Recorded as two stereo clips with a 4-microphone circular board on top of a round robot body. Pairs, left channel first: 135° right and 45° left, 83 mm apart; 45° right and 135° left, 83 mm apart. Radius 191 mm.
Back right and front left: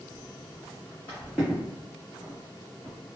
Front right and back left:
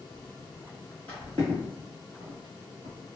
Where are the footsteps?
110° right, 0.7 m; by 3.0 s 110° left, 1.3 m.